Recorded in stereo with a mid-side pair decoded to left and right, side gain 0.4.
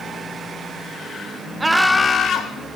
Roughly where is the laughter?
Ahead right.